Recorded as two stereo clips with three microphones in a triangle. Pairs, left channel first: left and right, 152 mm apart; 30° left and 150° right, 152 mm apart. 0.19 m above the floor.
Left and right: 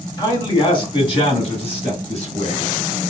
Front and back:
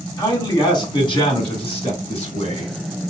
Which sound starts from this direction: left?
A man speaking, at 0.2 s.